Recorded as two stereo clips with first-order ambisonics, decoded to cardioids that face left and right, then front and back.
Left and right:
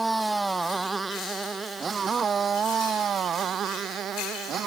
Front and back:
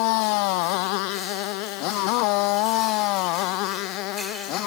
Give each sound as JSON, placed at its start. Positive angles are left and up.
{"t": 0.0, "sound": "a motorcycle", "azimuth_deg": -5}